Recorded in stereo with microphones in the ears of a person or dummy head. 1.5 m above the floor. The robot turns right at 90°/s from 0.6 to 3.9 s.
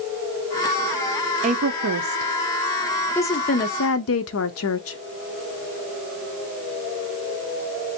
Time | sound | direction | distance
1.4 | a woman speaking | 30° right (ahead or behind) | 0.7 m